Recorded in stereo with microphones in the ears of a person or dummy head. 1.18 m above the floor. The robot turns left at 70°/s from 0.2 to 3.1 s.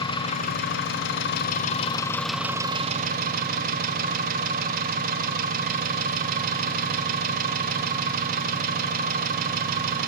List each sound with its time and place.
0.0 s an engine running: 150° left, 0.9 m; by 10.1 s 55° right, 0.9 m